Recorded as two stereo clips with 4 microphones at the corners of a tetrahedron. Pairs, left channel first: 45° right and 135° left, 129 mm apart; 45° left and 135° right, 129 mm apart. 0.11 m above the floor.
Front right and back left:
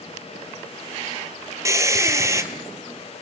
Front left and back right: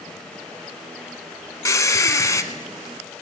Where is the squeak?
90° left, 0.9 m.